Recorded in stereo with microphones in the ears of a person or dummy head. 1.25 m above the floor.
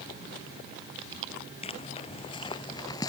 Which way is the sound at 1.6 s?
35° left (ahead or behind).